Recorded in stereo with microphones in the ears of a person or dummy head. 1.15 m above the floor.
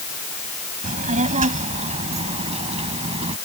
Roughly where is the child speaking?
Right.